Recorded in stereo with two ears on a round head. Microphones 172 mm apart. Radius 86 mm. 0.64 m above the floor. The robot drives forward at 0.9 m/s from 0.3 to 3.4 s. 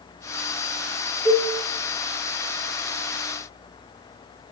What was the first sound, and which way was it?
A cowbell, 10° left (ahead or behind).